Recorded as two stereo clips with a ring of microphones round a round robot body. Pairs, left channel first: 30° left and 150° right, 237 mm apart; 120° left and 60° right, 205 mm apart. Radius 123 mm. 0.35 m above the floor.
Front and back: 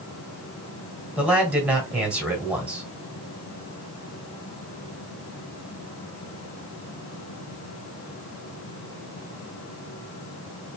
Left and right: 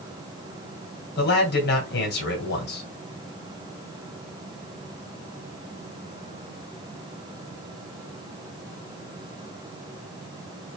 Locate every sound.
1.2 s a man speaking: 125° left, 2 m